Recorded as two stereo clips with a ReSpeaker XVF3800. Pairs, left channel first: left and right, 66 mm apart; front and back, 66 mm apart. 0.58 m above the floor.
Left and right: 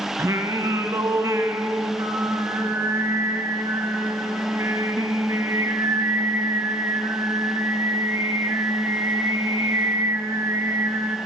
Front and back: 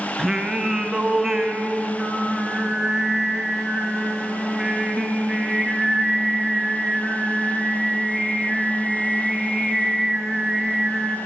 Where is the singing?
100° right, 0.6 m.